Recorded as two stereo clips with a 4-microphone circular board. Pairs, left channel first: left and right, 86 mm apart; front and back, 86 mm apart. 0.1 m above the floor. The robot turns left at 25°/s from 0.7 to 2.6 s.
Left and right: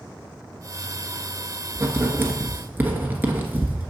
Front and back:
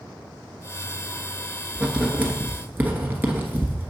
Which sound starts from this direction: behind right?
Writing, at 1.8 s.